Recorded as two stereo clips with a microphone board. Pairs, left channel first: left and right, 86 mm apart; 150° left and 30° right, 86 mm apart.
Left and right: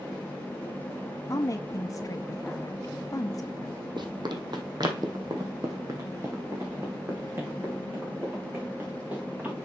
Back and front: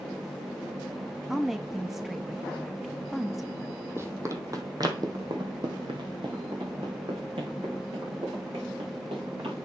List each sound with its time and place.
1.3 s a woman speaking: 55° left, 0.7 m
4.0 s running footsteps: 85° right, 1.5 m; by 9.6 s 20° right, 4 m